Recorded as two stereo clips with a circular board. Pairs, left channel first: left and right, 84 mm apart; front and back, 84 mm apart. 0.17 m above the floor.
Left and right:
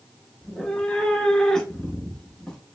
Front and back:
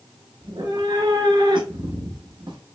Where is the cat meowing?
175° left, 0.8 m.